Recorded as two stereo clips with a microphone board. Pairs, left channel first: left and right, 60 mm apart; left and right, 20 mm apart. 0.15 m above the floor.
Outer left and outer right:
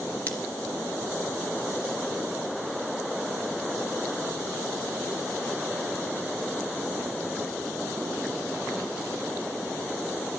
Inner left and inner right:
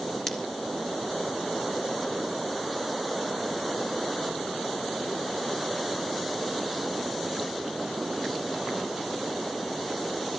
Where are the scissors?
25° left (ahead or behind), 3 m.